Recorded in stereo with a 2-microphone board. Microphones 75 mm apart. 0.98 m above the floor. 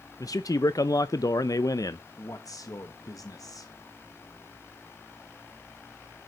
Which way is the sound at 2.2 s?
50° left (ahead or behind).